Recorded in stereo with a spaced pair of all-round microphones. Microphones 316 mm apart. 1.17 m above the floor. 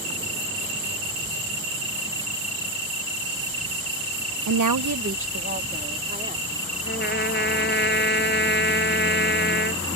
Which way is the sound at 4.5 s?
60° right (ahead or behind).